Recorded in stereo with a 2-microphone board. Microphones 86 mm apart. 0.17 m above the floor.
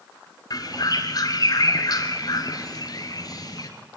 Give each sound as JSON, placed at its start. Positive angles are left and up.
{"t": 0.5, "sound": "a bird", "side_deg": 45, "distance_m": 2.0}